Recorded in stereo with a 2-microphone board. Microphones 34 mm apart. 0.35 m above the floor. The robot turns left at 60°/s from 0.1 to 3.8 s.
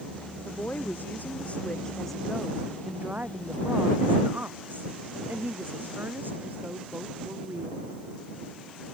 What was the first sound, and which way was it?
A woman speaking, 110° left.